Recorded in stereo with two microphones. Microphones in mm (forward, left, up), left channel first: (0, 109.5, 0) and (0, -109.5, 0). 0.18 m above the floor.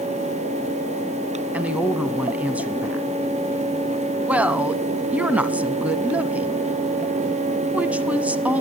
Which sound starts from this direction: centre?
A woman speaking, at 1.5 s.